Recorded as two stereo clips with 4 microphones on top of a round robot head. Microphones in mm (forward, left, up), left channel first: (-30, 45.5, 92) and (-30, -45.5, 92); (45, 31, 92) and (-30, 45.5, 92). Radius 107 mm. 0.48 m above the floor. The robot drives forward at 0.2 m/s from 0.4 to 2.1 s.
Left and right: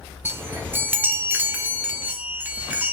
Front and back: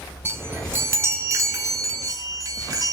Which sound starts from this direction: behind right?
A chime, at 0.2 s.